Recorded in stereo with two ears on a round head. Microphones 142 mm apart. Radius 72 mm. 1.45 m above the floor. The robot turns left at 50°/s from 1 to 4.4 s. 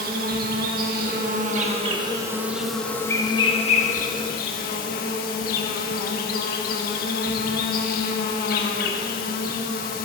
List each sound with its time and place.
0.0 s an insect: 95° right, 1.3 m; by 10.1 s 95° left, 1.3 m